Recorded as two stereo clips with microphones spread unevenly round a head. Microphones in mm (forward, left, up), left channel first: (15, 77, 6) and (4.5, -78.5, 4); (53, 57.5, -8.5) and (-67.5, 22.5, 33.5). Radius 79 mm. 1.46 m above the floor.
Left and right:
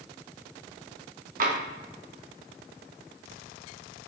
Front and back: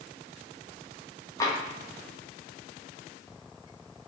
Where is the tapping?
65° right, 1.1 m.